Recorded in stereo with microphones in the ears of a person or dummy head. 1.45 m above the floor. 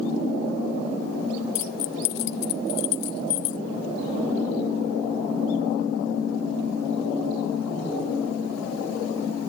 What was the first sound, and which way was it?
Keys jangling, 50° left (ahead or behind).